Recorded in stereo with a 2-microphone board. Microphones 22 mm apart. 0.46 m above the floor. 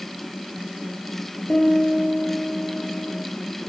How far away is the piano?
About 6 m.